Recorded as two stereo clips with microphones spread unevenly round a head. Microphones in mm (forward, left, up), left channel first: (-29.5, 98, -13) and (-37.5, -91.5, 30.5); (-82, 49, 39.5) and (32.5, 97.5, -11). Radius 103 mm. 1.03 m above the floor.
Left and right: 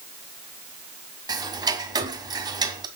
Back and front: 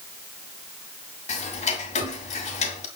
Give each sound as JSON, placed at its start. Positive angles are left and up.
{"t": 1.3, "sound": "ticking", "azimuth_deg": -155, "distance_m": 2.0}